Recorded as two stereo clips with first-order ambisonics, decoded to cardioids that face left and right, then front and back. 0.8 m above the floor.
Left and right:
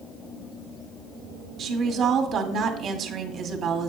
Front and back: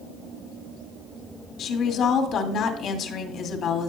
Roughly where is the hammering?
I don't hear hammering.